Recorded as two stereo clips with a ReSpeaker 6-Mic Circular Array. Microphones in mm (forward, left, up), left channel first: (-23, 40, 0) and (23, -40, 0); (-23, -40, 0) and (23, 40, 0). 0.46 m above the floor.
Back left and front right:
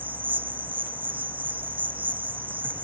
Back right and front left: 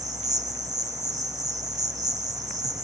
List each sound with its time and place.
0.0 s an insect: 10° left, 1.1 m